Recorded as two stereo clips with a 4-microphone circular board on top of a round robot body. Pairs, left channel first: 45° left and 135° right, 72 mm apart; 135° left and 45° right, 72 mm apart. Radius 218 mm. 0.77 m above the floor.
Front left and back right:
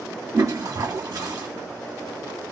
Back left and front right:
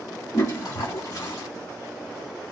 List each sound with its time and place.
0.3 s a toilet flushing: straight behind, 0.8 m